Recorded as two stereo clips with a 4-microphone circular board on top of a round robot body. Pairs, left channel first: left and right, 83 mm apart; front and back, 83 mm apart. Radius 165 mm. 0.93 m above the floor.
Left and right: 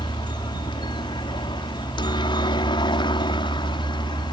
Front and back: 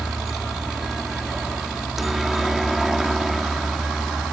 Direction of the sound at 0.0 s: 95° left.